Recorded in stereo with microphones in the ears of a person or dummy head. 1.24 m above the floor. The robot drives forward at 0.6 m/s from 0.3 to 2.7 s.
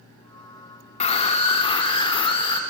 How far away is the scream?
About 3 m.